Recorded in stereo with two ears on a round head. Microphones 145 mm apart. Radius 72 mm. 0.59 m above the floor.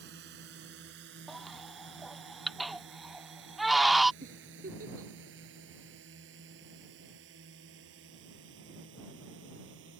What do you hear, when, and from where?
0.0 s a drone: 75° right (ahead or behind); by 10.0 s 85° right
1.3 s a baby crying: centre (ahead or behind)
4.2 s a giggle: 55° right (ahead or behind)